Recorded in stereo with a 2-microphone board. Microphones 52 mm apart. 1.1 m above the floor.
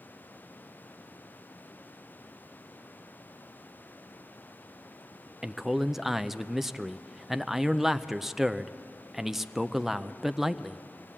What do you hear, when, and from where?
5.4 s a man speaking: 5° right (ahead or behind), 0.6 m